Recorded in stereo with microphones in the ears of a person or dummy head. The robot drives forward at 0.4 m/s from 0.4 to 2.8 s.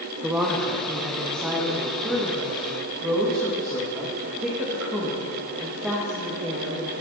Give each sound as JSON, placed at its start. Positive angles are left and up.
{"t": 0.2, "sound": "a woman speaking", "side_deg": -5, "distance_m": 1.6}